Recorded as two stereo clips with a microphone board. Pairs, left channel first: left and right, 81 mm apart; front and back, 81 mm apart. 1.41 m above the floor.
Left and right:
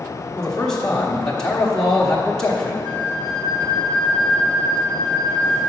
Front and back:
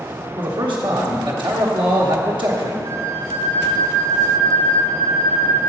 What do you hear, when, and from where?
0.4 s a man speaking: 175° left, 1.1 m
2.8 s a flute: 80° right, 1.8 m